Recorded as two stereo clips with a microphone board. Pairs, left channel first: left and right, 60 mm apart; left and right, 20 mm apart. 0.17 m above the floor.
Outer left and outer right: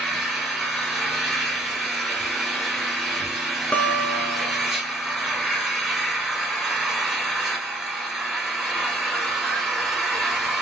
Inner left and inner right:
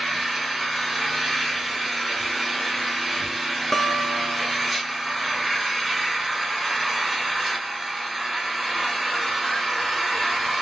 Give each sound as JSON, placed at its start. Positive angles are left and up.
{"t": 0.0, "sound": "an engine running", "side_deg": -5, "distance_m": 1.9}
{"t": 3.7, "sound": "a guitar", "side_deg": 25, "distance_m": 0.5}